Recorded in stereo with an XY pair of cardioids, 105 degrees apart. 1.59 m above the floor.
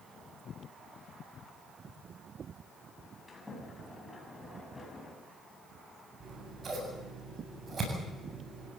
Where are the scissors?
40° right, 8 m.